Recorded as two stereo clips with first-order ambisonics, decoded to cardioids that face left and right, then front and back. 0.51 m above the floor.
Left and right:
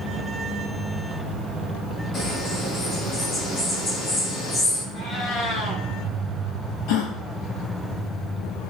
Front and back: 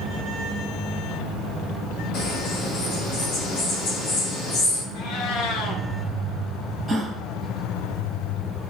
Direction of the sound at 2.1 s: 30° left.